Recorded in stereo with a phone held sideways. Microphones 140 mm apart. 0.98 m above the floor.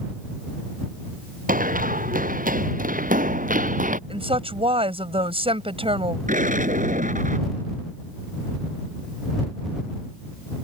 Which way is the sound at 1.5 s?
80° right.